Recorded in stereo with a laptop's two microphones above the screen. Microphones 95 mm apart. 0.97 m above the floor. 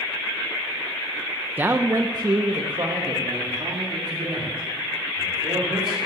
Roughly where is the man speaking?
Centre.